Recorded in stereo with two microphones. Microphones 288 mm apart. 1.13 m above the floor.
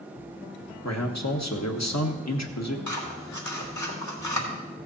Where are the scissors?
80° left, 1.9 m.